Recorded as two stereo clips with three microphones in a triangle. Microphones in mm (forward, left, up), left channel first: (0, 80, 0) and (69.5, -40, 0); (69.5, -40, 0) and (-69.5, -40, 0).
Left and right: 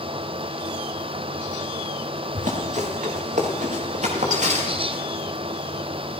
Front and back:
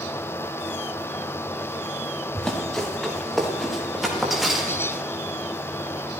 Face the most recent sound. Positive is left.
turn(degrees=-95)